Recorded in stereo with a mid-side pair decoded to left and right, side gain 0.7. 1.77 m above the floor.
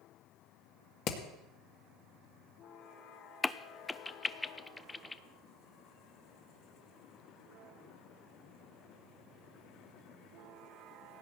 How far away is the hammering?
About 2.5 m.